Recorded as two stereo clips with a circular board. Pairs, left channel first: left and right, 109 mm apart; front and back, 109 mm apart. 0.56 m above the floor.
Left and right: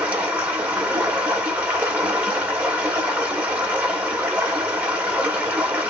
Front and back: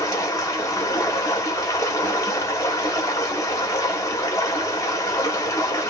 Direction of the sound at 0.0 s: 25° right.